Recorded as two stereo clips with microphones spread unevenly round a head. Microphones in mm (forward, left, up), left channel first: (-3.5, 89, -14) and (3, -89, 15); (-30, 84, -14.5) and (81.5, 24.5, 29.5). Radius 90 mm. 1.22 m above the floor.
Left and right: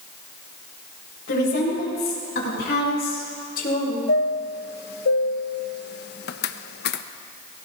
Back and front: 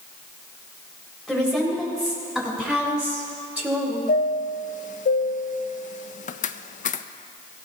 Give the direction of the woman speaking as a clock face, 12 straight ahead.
10 o'clock.